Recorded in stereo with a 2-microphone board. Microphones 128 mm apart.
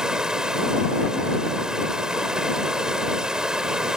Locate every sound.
0.0 s running water: 5° right (ahead or behind)